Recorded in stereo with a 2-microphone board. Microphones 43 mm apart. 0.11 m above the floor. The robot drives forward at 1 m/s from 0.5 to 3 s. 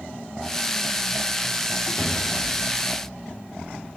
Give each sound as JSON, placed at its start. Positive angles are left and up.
{"t": 2.0, "sound": "a cupboard door", "side_deg": 55, "distance_m": 1.7}